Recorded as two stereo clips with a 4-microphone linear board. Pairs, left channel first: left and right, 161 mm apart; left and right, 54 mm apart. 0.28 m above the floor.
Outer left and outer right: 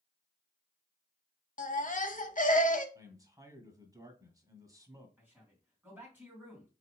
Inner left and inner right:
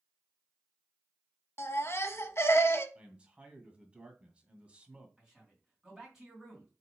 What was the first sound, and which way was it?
A baby crying, 55° left (ahead or behind).